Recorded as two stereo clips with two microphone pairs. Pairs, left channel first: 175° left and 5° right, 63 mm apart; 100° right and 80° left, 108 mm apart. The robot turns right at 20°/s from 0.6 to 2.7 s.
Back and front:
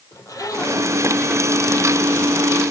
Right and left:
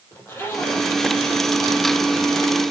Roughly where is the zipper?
Behind.